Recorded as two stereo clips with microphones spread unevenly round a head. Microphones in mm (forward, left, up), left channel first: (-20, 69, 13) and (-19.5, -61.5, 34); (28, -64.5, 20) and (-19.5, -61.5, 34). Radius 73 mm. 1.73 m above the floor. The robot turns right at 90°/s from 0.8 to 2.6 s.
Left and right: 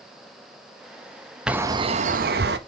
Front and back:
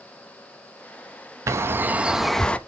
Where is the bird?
175° right, 0.7 m; by 2.6 s 70° right, 0.7 m.